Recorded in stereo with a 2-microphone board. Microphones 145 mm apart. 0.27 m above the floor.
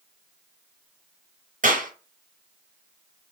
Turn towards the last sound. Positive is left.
turn(degrees=-65)  # may be behind; listen again after turning